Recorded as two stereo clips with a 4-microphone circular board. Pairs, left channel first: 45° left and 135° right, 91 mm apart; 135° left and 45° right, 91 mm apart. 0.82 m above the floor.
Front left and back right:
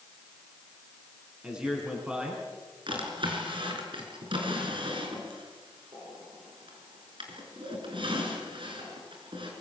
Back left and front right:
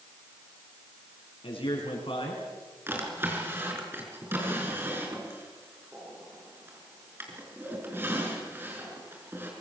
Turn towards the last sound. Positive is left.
turn(degrees=-110)